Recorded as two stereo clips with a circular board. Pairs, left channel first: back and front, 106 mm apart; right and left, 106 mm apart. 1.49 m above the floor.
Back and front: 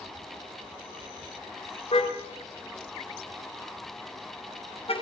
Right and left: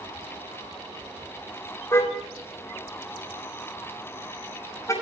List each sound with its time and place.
1.9 s a car horn: 155° right, 4 m; by 4.9 s 150° right, 5.5 m